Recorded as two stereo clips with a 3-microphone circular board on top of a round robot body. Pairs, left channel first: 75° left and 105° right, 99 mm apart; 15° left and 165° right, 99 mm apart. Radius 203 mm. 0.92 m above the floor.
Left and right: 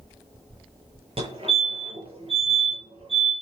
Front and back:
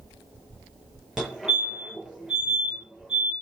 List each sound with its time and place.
1.2 s a fire alarm: 80° right, 7.5 m